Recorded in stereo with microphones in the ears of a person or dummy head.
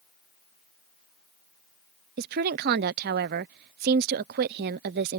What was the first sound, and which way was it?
A woman speaking, 50° right (ahead or behind).